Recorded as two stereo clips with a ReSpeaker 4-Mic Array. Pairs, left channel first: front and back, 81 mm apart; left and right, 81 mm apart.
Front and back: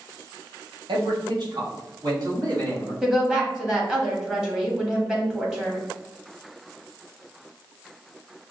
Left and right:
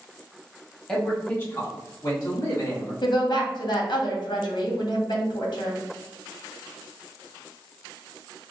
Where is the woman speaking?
100° left, 1.4 m.